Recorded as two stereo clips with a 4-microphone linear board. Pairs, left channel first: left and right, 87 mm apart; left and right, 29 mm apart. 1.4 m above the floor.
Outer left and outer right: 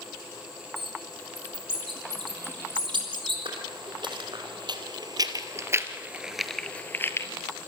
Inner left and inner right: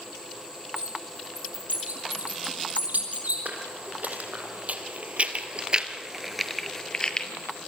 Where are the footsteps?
70° right (ahead or behind), 4.5 m; by 7.3 s 35° left (ahead or behind), 2 m.